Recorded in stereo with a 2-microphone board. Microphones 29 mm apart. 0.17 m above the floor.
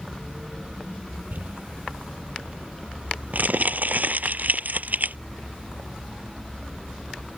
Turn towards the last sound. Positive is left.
turn(degrees=-80)